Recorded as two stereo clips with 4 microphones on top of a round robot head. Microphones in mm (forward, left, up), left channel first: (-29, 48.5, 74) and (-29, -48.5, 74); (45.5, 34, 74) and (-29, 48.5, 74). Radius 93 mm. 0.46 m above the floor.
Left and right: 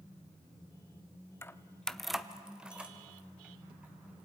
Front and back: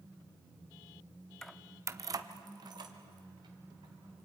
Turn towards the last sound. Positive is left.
turn(degrees=-165)